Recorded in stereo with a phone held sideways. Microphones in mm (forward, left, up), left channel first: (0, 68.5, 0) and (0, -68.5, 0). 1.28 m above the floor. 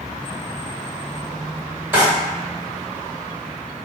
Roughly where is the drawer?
Centre.